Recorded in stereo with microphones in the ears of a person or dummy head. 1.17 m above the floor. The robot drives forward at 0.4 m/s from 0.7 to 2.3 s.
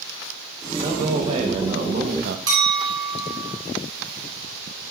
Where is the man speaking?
35° right (ahead or behind), 1.1 m; by 2.4 s 60° right (ahead or behind), 0.7 m.